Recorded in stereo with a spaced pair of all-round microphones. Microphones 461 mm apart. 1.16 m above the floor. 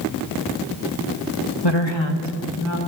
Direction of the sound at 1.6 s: 60° left (ahead or behind).